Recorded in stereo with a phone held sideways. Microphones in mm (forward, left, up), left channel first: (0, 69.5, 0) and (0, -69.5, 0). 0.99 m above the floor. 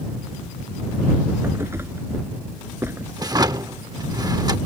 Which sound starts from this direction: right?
A drawer, at 3.2 s.